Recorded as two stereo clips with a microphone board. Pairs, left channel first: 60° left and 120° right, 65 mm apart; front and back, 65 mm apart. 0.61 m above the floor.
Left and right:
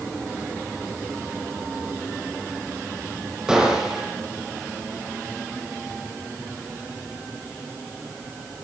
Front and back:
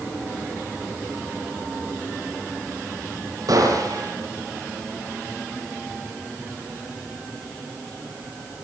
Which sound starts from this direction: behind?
A gunshot, at 3.5 s.